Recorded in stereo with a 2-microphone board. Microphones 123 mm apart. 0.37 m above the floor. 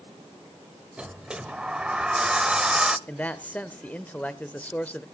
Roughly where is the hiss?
No hiss in this recording.